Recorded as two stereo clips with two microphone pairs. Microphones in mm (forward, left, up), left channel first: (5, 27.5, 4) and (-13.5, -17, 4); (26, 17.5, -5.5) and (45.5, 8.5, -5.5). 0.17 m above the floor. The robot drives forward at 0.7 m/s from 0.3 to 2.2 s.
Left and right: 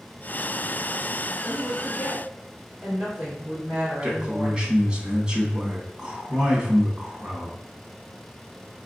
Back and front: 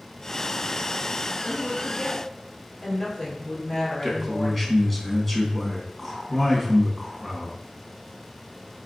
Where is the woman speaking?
Straight behind, 2.0 m.